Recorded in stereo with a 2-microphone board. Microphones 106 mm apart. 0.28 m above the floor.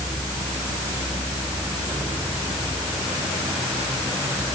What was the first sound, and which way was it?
Only background noise.